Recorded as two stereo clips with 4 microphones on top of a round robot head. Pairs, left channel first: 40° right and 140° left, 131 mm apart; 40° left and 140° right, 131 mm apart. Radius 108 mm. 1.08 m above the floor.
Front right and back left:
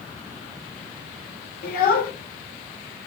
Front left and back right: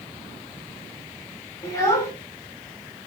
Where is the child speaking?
30° right, 1.1 m.